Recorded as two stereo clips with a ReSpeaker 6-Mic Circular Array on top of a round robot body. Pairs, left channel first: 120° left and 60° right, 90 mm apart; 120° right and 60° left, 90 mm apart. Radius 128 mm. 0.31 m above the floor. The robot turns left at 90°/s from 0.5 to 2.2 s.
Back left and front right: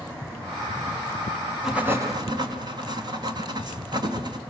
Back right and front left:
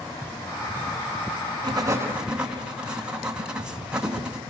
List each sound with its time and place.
1.6 s writing: 30° left, 3.5 m; by 4.4 s 20° right, 3.5 m